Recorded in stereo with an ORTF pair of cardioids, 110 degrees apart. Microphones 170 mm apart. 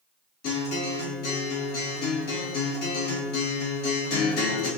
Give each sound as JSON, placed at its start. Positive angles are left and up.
{"t": 0.4, "sound": "a guitar", "azimuth_deg": 70, "distance_m": 1.5}